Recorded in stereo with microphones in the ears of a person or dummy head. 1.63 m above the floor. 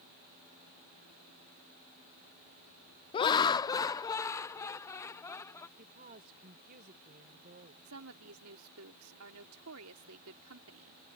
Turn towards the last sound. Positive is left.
turn(degrees=-85)